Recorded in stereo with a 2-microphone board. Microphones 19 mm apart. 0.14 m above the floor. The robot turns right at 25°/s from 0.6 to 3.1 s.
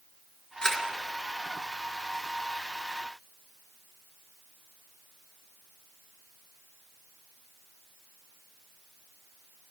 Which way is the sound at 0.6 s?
50° left (ahead or behind).